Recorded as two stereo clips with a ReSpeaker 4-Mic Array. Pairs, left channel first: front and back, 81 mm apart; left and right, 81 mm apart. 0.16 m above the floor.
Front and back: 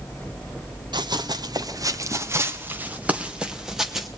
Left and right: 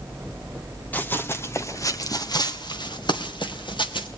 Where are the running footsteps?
160° left, 1.8 m; by 4.1 s 90° left, 2.5 m.